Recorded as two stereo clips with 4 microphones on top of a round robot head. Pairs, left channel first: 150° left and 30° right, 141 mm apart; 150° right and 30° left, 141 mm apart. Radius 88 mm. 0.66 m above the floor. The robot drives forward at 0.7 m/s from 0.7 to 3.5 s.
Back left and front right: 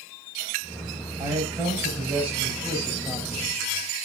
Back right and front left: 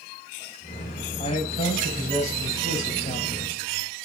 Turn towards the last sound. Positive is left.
turn(degrees=-120)